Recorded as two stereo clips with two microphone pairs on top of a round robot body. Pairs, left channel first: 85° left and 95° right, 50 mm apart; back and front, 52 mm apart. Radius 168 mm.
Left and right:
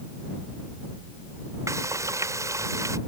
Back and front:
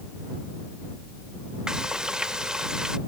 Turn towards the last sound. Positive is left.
turn(degrees=-80)